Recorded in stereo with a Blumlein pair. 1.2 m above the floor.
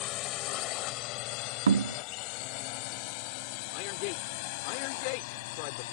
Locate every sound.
0.0 s a drone: 35° left; by 5.9 s 50° left
1.7 s knocking: 70° right
3.7 s a man speaking: 45° left